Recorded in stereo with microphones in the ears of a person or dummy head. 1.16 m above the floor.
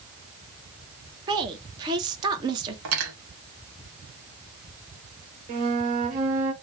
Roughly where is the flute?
Right.